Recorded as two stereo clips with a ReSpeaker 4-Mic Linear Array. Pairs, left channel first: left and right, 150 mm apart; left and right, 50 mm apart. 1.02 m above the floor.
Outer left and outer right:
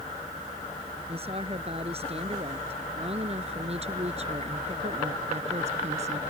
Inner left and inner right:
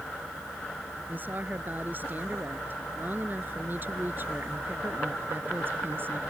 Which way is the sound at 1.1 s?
40° right (ahead or behind).